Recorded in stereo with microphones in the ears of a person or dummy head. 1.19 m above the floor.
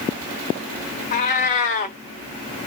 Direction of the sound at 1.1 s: 40° left (ahead or behind).